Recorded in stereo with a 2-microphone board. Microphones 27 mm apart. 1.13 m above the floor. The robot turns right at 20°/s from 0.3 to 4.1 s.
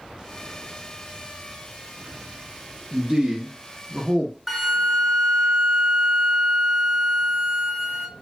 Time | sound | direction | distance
2.9 | a man speaking | 30° right (ahead or behind) | 0.6 m
4.5 | a flute | centre (ahead or behind) | 0.5 m